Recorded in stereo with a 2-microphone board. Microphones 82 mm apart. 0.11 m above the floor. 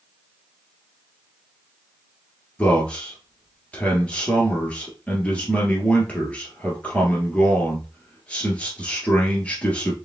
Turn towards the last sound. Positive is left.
turn(degrees=15)  # may be behind; listen again after turning